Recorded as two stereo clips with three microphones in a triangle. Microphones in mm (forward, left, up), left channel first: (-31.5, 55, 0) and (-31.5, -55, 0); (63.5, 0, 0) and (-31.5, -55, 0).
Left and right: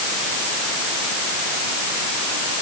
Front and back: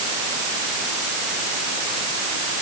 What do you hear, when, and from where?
Only background noise.